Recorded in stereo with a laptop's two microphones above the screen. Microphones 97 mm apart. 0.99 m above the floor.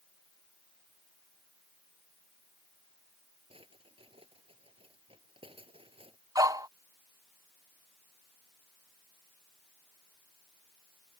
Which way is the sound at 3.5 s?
75° right (ahead or behind).